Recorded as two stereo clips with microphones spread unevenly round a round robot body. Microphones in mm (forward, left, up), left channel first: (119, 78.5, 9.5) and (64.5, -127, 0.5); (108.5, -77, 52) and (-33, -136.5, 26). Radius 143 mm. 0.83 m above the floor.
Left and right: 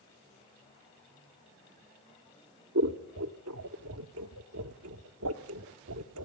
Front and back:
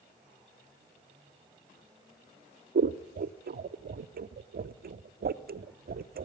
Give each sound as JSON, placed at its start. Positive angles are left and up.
{"t": 2.8, "sound": "scissors", "azimuth_deg": -140, "distance_m": 1.0}